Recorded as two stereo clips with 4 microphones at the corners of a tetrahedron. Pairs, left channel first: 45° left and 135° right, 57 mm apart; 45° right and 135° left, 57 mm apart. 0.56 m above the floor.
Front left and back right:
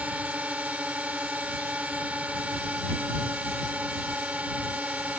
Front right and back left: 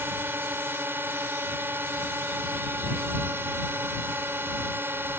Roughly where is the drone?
Behind.